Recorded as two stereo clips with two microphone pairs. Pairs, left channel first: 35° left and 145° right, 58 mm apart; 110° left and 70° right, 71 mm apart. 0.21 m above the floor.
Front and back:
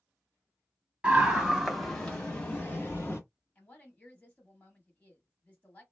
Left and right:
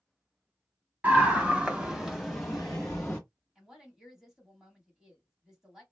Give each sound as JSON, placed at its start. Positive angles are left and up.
{"t": 1.0, "sound": "a scream", "azimuth_deg": -95, "distance_m": 1.2}
{"t": 3.5, "sound": "a woman speaking", "azimuth_deg": 0, "distance_m": 1.4}